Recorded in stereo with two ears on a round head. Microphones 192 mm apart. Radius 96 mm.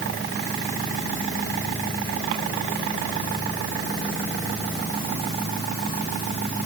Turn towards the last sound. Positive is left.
No sound to turn to.